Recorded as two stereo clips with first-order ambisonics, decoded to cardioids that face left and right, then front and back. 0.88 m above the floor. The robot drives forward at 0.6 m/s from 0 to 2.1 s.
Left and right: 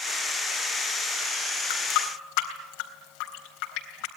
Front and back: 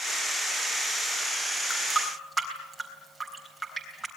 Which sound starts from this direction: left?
A running tap, at 1.7 s.